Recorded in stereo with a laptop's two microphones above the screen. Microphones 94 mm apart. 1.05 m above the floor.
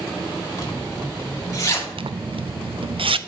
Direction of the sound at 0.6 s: 35° left (ahead or behind).